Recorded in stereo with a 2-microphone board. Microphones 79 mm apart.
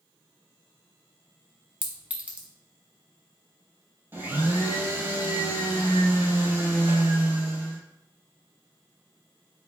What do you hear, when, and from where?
1.8 s a clink: 15° right (ahead or behind), 0.6 m
4.1 s a blender: 25° right (ahead or behind), 0.7 m